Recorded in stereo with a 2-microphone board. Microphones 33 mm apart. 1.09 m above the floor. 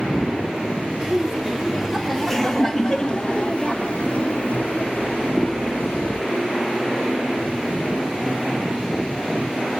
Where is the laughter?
20° right (ahead or behind), 1.8 m; by 6.2 s 70° left (ahead or behind), 2.5 m.